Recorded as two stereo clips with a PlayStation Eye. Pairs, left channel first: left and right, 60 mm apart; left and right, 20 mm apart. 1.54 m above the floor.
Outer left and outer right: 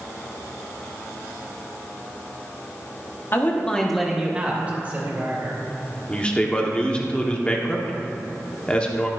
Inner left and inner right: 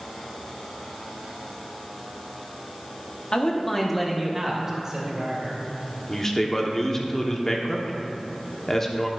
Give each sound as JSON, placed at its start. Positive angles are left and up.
{"t": 3.3, "sound": "a man speaking", "side_deg": 40, "distance_m": 1.2}
{"t": 6.1, "sound": "a man speaking", "side_deg": 20, "distance_m": 1.1}